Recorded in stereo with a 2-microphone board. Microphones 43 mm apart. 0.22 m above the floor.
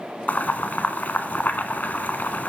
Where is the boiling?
45° left (ahead or behind), 0.9 m.